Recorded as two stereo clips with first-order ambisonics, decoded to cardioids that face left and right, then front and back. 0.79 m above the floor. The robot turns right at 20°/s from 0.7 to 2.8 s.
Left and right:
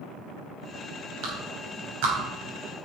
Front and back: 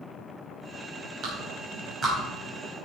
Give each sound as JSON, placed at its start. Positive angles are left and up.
{"t": 1.2, "sound": "a clap", "azimuth_deg": -125, "distance_m": 3.5}